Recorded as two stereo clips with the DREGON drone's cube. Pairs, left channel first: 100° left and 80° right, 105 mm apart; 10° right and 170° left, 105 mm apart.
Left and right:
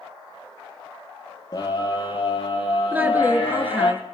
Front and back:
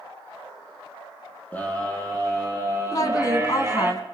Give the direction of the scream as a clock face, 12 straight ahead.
10 o'clock.